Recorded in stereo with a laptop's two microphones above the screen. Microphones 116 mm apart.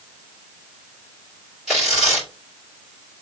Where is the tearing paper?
Centre (ahead or behind), 2.5 m.